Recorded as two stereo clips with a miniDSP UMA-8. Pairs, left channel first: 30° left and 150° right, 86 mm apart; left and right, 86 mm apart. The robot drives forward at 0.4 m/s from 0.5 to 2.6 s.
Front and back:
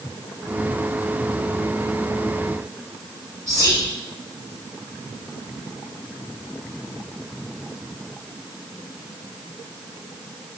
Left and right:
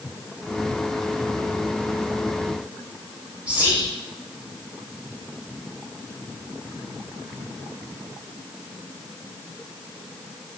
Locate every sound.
3.5 s whispering: 160° right, 1.2 m